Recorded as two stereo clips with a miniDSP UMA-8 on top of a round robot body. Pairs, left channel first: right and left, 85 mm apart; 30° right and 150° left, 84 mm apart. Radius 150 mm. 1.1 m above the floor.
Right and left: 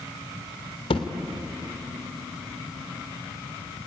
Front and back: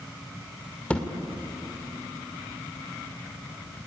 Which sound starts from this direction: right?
A thud, at 0.9 s.